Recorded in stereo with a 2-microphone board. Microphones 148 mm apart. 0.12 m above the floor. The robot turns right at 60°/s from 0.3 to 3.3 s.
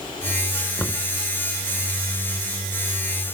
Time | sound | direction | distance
0.8 | knocking | 15° left (ahead or behind) | ?